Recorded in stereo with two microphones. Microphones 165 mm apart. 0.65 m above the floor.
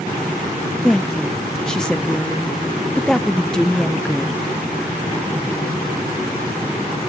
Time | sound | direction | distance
0.8 | a woman speaking | 5° left (ahead or behind) | 0.6 m